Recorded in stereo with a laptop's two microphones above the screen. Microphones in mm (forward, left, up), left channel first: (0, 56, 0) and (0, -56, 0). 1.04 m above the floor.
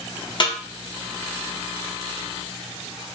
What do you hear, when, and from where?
0.4 s a snare drum: 45° left (ahead or behind), 1.1 m